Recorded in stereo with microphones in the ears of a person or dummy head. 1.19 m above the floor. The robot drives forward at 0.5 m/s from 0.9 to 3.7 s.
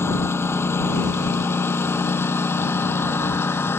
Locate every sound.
0.0 s a lawn mower: 10° left (ahead or behind)